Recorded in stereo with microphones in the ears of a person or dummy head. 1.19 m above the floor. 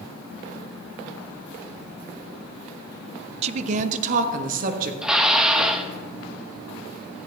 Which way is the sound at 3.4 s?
35° right (ahead or behind).